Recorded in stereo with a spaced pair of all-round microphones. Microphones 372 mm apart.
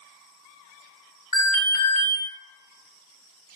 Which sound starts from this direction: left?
An alarm, at 1.3 s.